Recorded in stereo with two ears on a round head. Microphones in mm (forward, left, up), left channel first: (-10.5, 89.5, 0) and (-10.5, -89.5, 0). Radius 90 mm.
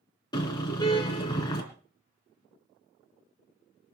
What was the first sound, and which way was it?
A car horn, 20° left (ahead or behind).